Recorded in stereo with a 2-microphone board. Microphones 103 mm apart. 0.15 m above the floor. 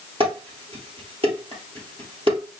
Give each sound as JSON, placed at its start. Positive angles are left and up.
{"t": 0.2, "sound": "dishes clattering", "side_deg": -60, "distance_m": 2.0}